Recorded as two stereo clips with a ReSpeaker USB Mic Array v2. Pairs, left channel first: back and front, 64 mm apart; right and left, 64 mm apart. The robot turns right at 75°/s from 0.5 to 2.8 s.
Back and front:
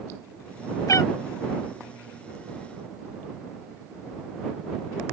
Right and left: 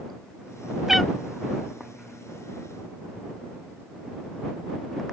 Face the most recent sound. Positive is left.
turn(degrees=-45)